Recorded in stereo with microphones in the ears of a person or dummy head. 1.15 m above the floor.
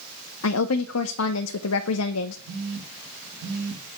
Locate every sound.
0.4 s a woman speaking: 75° left (ahead or behind), 0.7 m
2.5 s a phone buzzing: 65° right (ahead or behind), 2 m